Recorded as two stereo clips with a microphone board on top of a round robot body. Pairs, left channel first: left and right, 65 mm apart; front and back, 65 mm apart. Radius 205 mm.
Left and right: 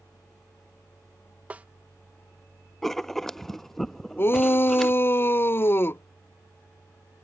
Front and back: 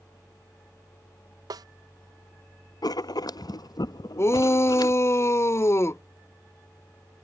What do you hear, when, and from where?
1.5 s a snare drum: 160° right
2.8 s writing: 5° left
4.2 s a shout: 40° left